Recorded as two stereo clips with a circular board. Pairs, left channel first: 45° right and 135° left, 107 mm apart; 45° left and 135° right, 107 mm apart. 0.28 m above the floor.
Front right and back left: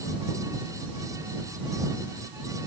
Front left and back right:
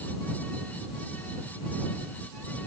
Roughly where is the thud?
I don't hear a thud.